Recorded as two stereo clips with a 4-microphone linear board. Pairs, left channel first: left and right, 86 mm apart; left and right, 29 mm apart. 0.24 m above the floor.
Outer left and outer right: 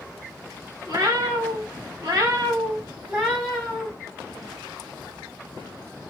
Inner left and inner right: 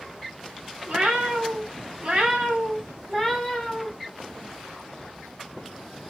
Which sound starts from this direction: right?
A cat meowing, at 0.9 s.